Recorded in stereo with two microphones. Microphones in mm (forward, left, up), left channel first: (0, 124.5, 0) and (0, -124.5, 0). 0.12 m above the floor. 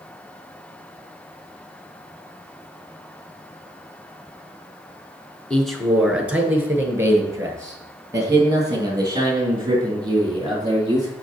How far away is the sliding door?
No sliding door in this recording.